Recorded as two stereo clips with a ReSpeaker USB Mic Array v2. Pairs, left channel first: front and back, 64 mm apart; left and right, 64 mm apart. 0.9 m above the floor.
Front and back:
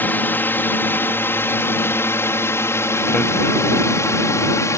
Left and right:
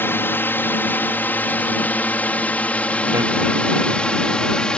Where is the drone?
50° left; by 4.8 s 15° left.